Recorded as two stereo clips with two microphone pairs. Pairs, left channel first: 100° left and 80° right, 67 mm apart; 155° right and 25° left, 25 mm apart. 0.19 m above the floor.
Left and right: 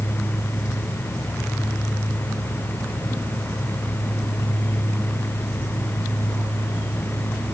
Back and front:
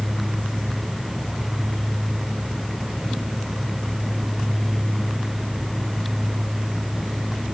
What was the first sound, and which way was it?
Only background noise.